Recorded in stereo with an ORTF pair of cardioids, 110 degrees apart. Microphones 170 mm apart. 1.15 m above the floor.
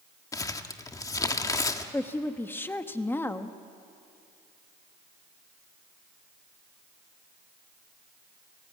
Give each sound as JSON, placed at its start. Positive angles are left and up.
{"t": 0.3, "sound": "crumpling", "azimuth_deg": 20, "distance_m": 1.4}
{"t": 1.9, "sound": "a woman speaking", "azimuth_deg": 10, "distance_m": 1.4}